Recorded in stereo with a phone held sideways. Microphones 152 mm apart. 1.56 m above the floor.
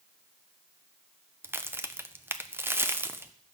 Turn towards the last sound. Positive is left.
turn(degrees=-15)  # may be behind; listen again after turning